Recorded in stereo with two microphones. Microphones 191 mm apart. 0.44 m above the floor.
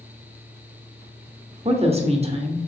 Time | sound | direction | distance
1.6 | a woman speaking | 30° right (ahead or behind) | 0.8 m